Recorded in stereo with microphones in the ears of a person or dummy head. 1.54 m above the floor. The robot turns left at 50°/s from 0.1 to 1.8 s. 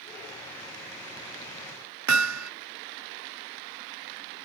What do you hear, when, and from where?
2.1 s hammering: 85° right